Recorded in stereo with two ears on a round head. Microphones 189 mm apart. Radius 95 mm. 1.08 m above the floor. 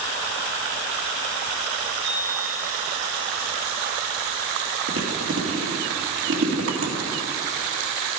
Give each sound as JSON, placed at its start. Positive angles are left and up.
{"t": 2.0, "sound": "a chime", "side_deg": -35, "distance_m": 4.5}
{"t": 4.9, "sound": "chewing", "side_deg": -65, "distance_m": 1.9}